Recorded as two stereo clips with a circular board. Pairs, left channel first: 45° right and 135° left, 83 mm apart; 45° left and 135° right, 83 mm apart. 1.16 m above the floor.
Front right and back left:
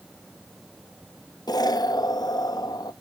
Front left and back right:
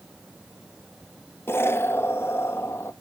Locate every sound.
1.5 s an explosion: 15° right, 0.6 m